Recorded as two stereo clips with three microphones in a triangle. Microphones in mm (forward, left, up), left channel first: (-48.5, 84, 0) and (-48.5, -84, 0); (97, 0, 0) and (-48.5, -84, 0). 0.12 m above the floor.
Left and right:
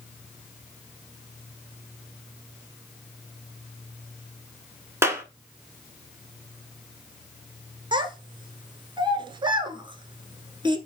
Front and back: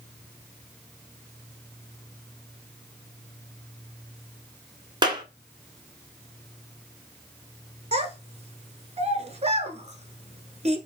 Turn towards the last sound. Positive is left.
turn(degrees=-135)